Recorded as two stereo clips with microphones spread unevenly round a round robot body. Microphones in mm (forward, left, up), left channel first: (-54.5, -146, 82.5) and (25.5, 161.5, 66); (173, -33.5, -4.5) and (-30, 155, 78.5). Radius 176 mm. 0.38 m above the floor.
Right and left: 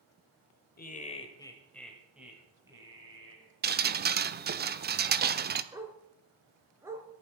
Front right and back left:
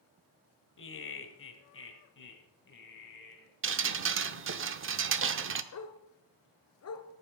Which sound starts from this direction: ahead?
A dog barking, at 5.7 s.